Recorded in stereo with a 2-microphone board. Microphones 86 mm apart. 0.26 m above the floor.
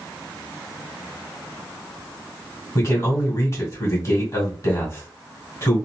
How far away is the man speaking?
About 2 m.